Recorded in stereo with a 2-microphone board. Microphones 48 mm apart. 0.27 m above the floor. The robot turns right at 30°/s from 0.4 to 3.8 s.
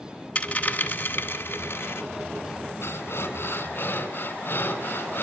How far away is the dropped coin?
About 1.0 m.